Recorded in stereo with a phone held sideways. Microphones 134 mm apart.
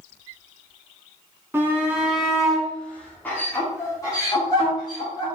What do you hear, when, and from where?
1.5 s a shout: 15° right (ahead or behind), 1.6 m; by 5.3 s 35° left (ahead or behind), 2.5 m